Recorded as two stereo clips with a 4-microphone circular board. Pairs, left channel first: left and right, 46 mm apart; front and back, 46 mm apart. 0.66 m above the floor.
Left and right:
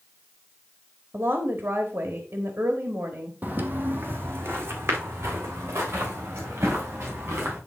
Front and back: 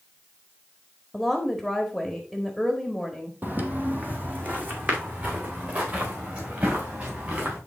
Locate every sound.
1.1 s a woman speaking: 90° right, 1.4 m
3.4 s footsteps: 135° right, 1.2 m; by 7.6 s 125° right, 4.5 m